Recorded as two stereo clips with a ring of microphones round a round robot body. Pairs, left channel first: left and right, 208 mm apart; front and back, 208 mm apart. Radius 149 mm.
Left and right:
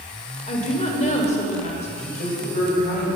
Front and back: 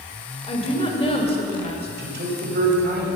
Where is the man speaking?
150° left, 2.5 m.